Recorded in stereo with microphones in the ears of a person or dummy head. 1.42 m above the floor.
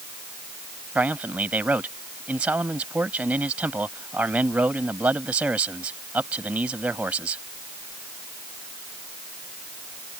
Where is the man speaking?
10° right (ahead or behind).